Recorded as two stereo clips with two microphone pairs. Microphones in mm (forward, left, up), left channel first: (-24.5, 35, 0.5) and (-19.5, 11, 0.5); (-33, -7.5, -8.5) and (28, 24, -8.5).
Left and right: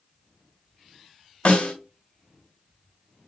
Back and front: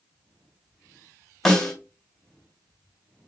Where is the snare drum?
125° left, 1.6 m.